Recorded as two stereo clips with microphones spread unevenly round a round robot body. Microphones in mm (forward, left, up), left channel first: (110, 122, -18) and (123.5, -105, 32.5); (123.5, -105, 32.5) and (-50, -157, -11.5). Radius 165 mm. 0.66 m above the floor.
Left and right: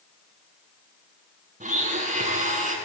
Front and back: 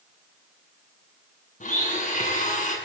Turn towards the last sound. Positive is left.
turn(degrees=-30)